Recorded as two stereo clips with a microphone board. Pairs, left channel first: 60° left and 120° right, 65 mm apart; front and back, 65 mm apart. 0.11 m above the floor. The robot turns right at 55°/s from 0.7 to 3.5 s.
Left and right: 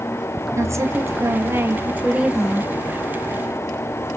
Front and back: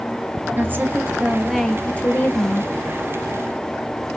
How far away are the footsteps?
I don't hear footsteps.